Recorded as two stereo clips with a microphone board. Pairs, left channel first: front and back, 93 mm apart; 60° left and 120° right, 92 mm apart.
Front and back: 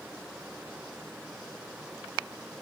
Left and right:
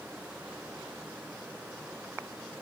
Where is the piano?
I don't hear a piano.